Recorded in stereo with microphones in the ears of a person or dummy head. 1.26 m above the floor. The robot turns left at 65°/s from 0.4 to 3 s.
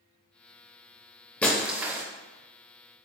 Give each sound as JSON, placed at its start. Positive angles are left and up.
{"t": 1.4, "sound": "breaking glass", "azimuth_deg": 15, "distance_m": 0.5}